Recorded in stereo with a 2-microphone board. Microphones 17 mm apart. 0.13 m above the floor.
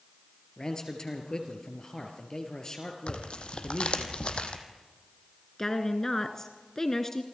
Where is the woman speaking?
30° left (ahead or behind), 1.4 m.